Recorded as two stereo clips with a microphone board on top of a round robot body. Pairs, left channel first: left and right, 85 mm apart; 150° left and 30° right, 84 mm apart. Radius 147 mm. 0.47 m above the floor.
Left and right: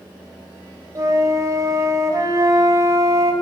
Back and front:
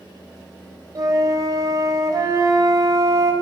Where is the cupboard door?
I don't hear a cupboard door.